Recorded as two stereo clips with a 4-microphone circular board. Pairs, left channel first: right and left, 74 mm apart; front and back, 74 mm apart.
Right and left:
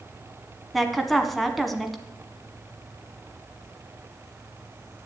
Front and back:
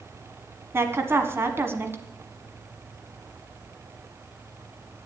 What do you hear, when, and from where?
0.7 s a woman speaking: 175° right, 1.4 m